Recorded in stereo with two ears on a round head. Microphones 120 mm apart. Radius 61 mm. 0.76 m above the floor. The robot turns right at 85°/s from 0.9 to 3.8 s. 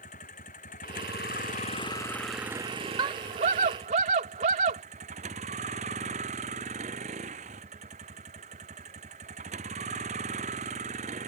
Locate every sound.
0.0 s a vehicle: 60° left; by 11.3 s 55° right
3.0 s a scream: 140° right; by 4.8 s 70° right